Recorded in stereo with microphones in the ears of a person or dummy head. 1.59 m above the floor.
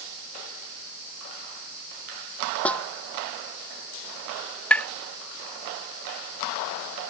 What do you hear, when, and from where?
2.6 s a snare drum: 10° left (ahead or behind)
4.7 s tapping: 5° left (ahead or behind)